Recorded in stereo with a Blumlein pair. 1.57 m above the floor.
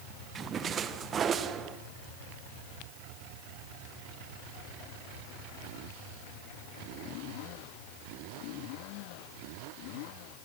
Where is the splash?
25° right, 1.4 m.